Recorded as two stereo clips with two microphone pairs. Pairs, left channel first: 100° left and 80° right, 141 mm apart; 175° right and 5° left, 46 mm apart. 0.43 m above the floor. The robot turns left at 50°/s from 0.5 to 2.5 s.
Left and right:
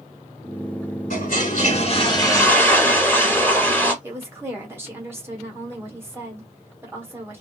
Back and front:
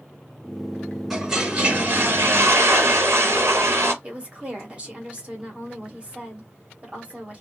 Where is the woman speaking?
25° right, 1.1 m.